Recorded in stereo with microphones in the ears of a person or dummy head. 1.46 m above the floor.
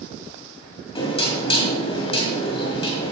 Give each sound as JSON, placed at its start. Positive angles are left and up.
{"t": 0.9, "sound": "knocking", "side_deg": 30, "distance_m": 1.9}